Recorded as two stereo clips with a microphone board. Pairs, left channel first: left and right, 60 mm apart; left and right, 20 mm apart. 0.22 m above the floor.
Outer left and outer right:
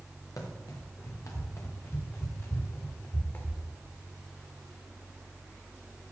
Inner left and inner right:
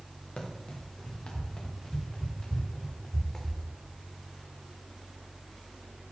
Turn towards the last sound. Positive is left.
turn(degrees=35)  # may be behind; listen again after turning